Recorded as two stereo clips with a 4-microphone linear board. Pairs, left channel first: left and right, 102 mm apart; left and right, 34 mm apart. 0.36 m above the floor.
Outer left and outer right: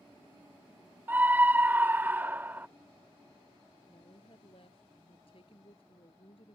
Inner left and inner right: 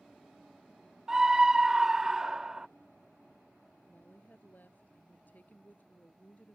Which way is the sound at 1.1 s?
20° right (ahead or behind).